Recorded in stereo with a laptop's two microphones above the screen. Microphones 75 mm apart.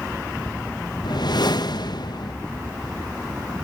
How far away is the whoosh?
About 0.7 m.